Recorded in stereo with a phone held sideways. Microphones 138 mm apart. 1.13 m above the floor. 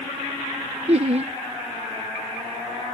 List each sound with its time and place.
0.9 s laughter: 50° right (ahead or behind)